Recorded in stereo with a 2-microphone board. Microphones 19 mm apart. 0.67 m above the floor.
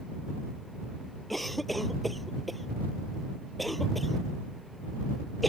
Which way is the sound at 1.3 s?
5° left (ahead or behind).